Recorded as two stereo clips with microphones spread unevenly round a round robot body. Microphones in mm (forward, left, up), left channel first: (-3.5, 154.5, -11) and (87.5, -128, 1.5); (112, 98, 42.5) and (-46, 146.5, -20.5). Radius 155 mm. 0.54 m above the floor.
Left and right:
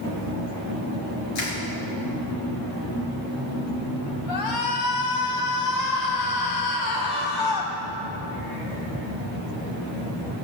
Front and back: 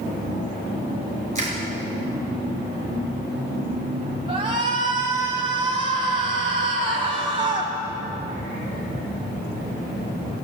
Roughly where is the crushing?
Behind left.